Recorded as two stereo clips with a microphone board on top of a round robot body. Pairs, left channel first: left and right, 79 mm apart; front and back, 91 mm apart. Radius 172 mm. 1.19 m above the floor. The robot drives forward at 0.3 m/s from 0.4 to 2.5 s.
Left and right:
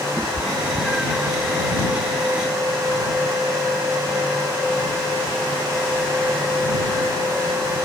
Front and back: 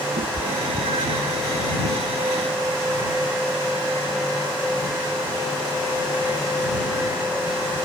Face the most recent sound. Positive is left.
turn(degrees=-175)